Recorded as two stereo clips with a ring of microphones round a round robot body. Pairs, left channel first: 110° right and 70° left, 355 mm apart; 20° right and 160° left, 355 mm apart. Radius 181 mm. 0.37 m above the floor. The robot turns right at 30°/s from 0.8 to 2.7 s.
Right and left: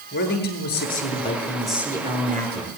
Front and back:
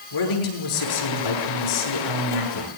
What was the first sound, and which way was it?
A man speaking, 50° right.